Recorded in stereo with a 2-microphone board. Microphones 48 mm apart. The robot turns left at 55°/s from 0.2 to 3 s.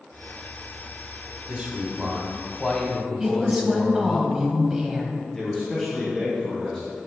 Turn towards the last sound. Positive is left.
turn(degrees=10)  # may be behind; listen again after turning